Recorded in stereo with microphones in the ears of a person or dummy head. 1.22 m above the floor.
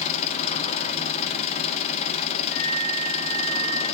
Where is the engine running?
35° left (ahead or behind), 1.1 m.